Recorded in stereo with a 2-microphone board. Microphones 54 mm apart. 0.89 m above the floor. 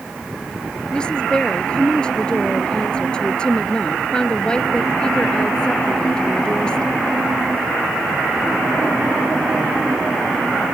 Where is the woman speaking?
15° left (ahead or behind).